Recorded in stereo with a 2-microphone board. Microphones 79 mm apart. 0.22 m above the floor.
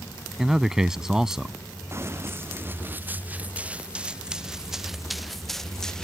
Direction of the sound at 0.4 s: 5° right (ahead or behind).